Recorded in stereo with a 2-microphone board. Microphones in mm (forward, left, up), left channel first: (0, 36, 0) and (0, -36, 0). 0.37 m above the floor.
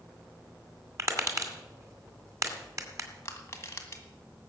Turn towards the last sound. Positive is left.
turn(degrees=35)  # may be behind; listen again after turning